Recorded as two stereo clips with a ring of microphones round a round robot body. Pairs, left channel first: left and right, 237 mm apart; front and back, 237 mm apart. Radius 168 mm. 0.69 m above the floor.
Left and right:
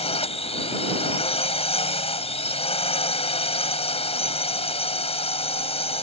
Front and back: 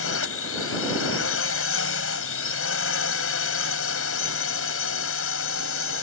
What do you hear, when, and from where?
0.0 s a drone: 25° left